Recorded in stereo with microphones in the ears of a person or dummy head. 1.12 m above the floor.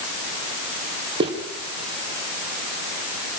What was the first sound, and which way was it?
Footsteps, 30° right (ahead or behind).